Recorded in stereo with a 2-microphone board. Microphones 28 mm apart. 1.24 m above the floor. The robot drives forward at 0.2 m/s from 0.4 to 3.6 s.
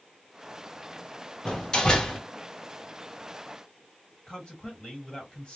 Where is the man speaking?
30° left (ahead or behind), 1.5 m.